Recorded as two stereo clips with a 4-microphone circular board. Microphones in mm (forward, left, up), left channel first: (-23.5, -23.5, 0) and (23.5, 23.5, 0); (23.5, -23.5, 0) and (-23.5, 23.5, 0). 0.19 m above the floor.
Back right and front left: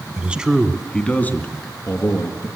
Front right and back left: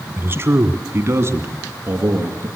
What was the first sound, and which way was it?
A man speaking, 105° left.